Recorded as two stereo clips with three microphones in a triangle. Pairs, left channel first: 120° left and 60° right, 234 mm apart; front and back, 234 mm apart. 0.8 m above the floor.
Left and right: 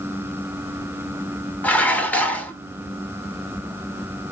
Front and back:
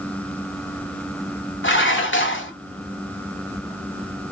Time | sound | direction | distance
1.6 | dishes clattering | 35° left | 1.2 m